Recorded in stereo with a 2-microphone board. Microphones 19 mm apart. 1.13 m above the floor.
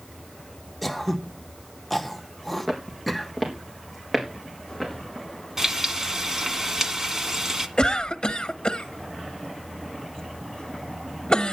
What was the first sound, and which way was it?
Throat clearing, 10° left (ahead or behind).